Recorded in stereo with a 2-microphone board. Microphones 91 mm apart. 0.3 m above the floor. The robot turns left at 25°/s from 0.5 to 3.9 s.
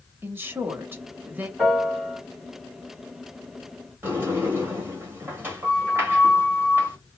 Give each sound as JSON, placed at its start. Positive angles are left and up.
{"t": 0.2, "sound": "a woman speaking", "side_deg": -25, "distance_m": 0.9}
{"t": 1.6, "sound": "a piano", "side_deg": 5, "distance_m": 1.4}
{"t": 4.0, "sound": "a sliding door", "side_deg": -25, "distance_m": 1.4}